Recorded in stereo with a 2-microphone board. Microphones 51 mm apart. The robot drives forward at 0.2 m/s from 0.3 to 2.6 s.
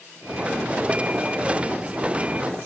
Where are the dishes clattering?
I don't hear dishes clattering.